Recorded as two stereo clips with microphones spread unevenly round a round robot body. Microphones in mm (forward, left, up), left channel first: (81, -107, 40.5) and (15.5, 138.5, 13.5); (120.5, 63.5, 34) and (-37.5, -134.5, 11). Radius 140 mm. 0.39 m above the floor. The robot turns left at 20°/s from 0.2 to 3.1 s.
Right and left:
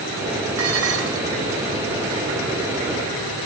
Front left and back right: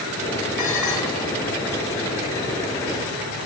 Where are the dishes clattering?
75° left, 3.5 m; by 1.3 s 60° left, 3.5 m.